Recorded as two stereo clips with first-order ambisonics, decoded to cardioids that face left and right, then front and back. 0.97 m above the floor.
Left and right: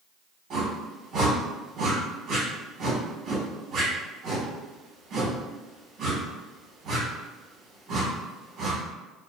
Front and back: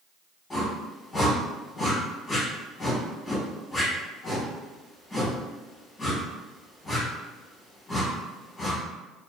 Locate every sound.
0.5 s a whoosh: 70° right, 1.0 m